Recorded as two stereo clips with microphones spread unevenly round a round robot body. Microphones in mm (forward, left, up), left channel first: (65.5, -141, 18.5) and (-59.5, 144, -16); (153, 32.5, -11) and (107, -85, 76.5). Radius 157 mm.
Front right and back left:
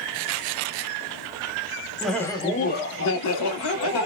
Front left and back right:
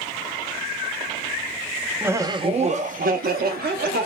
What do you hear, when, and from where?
2.0 s laughter: 45° left, 0.6 m; by 4.0 s 90° right, 1.0 m